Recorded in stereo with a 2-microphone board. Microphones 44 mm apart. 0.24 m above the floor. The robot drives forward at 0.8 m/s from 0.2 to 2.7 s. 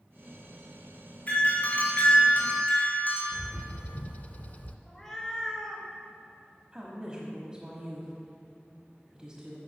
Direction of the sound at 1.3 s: 35° left (ahead or behind).